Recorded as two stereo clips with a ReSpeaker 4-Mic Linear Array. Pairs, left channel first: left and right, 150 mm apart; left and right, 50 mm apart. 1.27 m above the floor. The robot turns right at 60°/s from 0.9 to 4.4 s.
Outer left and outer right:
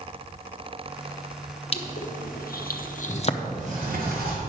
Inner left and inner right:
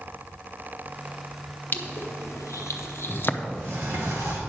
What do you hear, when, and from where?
1.7 s crushing: 40° left (ahead or behind), 0.7 m
3.4 s a sliding door: 135° right, 2.5 m; by 4.4 s 75° right, 2.5 m